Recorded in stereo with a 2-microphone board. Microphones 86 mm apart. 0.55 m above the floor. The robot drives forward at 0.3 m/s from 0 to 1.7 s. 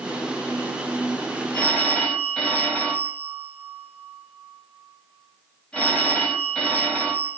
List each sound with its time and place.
1.5 s a phone ringing: 10° left (ahead or behind), 2 m